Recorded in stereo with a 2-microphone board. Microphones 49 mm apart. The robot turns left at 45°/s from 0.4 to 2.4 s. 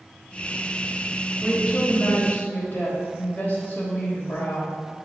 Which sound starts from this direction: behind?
A woman speaking, at 1.4 s.